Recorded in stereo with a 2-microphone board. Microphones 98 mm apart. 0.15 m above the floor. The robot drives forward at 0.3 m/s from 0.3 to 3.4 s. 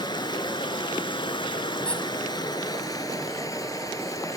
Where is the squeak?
10° left (ahead or behind), 1.3 m.